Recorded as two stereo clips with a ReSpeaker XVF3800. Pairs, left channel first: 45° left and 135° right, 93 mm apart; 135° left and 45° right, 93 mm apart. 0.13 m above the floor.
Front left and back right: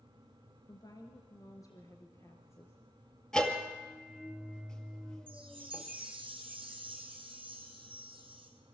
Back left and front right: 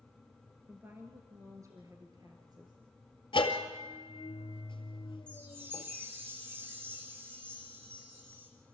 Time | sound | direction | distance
0.7 | a woman speaking | 20° left | 1.9 m
3.3 | a bell | 130° left | 2 m
5.3 | a chime | 110° right | 4.5 m